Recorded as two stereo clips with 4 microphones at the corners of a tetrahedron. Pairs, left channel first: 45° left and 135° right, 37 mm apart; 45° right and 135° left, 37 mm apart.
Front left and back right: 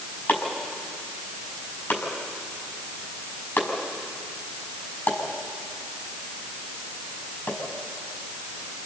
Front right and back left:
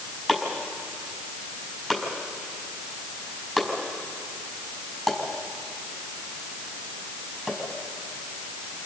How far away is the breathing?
I don't hear breathing.